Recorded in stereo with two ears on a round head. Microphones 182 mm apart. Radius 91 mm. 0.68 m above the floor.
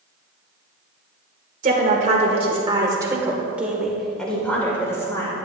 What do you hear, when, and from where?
1.6 s a woman speaking: 40° right (ahead or behind), 1.9 m; by 5.4 s 20° left (ahead or behind), 2.5 m